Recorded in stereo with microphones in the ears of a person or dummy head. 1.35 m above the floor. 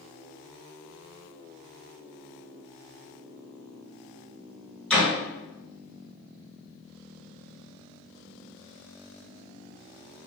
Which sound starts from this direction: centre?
A door slam, at 4.9 s.